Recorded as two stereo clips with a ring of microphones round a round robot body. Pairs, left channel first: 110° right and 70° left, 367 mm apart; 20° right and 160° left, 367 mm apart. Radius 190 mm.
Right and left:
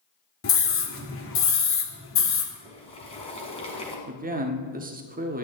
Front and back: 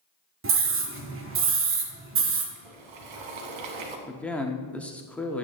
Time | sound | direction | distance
0.4 | a scream | 155° right | 1.8 m
2.5 | boiling | 170° left | 1.8 m
4.1 | a man speaking | 60° left | 1.1 m